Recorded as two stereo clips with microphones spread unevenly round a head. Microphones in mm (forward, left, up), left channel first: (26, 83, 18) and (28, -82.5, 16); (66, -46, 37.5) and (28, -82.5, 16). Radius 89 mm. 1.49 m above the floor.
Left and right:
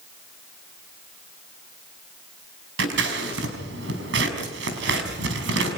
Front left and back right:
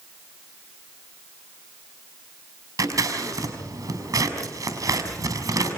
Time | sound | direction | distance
2.8 | scissors | 120° right | 5 m